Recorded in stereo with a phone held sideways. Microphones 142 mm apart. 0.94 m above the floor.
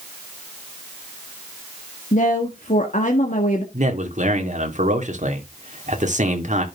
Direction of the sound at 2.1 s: 60° left (ahead or behind).